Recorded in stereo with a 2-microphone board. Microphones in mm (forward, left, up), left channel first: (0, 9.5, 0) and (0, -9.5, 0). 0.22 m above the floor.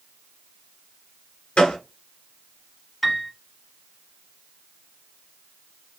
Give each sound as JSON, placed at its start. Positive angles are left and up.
{"t": 1.6, "sound": "a gunshot", "side_deg": 70, "distance_m": 1.6}
{"t": 3.0, "sound": "a piano", "side_deg": -5, "distance_m": 0.8}